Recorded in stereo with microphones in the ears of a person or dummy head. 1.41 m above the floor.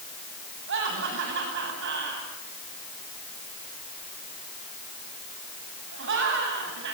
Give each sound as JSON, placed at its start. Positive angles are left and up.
{"t": 0.7, "sound": "laughter", "side_deg": -70, "distance_m": 8.5}